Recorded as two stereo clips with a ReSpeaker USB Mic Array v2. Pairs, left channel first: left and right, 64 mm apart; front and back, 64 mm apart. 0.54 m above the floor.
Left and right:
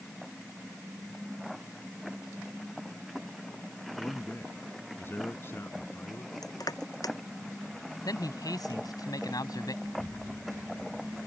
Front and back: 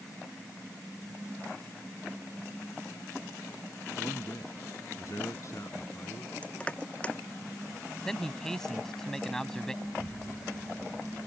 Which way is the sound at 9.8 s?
170° left.